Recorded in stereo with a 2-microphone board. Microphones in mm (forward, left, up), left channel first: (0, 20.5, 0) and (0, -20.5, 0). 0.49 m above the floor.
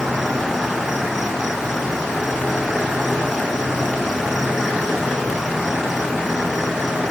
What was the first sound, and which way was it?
An insect, 10° right (ahead or behind).